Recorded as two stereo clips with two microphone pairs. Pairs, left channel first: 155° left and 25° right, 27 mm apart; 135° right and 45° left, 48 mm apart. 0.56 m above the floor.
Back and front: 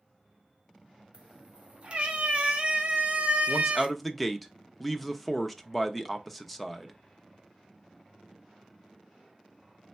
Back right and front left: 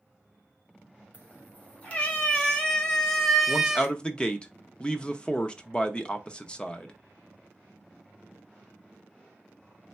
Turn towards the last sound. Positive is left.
turn(degrees=-130)